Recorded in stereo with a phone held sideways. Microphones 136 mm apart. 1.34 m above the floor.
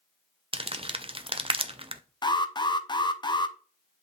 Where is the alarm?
30° left (ahead or behind), 0.6 m.